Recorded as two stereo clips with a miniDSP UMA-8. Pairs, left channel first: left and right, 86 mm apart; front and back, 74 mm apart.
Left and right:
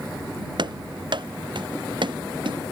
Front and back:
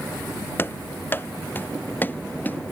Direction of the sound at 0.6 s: 65° right.